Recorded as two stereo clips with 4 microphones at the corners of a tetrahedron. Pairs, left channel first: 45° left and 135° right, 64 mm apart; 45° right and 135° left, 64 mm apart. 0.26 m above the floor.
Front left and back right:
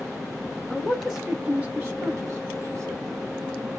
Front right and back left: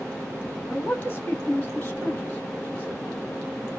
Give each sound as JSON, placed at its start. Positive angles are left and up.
{"t": 0.7, "sound": "a man speaking", "azimuth_deg": -15, "distance_m": 1.1}